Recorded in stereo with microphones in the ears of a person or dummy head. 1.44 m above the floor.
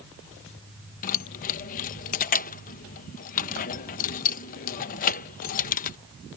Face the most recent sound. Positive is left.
turn(degrees=45)  # may be behind; listen again after turning